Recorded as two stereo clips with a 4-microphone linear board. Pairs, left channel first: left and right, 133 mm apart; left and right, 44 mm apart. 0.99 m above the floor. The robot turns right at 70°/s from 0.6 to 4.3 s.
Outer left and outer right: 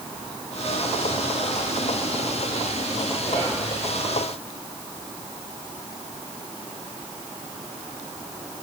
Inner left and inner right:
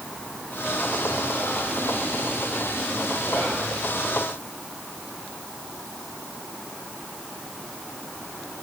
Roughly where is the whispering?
Left.